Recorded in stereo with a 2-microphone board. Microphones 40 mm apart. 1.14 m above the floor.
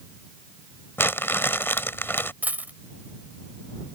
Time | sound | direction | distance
1.0 | crumpling | 75° left (ahead or behind) | ?
2.4 | a dropped coin | 45° right (ahead or behind) | ?